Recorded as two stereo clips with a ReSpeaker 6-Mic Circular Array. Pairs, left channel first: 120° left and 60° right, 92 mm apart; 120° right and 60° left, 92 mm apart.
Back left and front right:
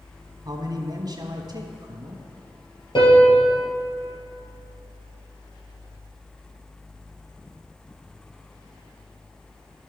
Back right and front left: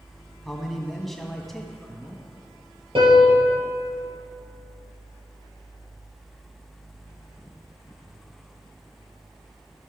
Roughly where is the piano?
Left.